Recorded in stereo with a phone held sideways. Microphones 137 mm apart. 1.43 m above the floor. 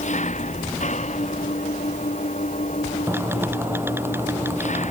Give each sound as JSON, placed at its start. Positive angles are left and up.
{"t": 0.0, "sound": "an engine running", "side_deg": 60}
{"t": 3.1, "sound": "typing on a keyboard", "side_deg": -15}